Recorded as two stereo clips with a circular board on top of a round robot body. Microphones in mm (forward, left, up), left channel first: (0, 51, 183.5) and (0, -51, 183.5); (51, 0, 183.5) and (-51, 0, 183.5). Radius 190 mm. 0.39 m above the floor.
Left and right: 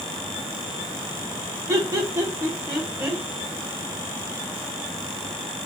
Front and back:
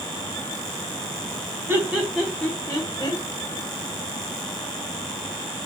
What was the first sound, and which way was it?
Laughter, 130° right.